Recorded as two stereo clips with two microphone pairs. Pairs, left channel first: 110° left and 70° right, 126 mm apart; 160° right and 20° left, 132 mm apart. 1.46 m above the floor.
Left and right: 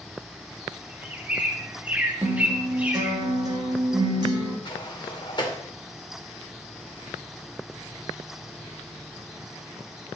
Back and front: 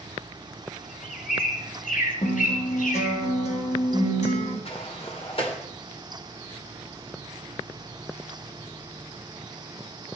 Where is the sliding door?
160° left, 2.5 m.